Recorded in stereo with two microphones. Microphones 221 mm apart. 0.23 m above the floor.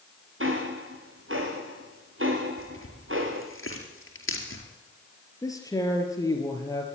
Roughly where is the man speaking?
Centre.